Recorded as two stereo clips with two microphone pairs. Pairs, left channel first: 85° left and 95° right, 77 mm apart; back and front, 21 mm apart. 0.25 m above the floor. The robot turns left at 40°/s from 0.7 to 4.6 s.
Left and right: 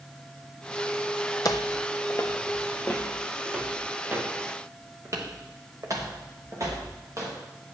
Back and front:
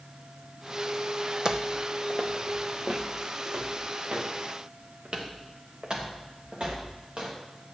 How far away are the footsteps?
About 0.7 m.